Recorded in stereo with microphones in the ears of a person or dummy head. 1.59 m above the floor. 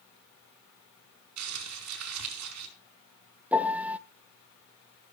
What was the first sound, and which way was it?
Crumpling, 90° right.